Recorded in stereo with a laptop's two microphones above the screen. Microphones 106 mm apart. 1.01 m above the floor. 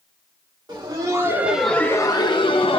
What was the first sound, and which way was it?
Laughter, 45° right (ahead or behind).